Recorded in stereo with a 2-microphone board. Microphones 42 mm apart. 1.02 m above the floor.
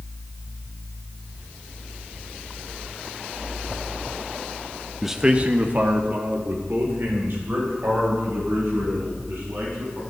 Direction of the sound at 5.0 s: Centre (ahead or behind).